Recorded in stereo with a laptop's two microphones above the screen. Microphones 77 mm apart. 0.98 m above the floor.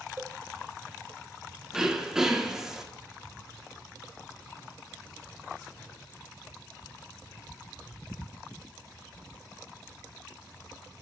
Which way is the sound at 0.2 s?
30° right (ahead or behind).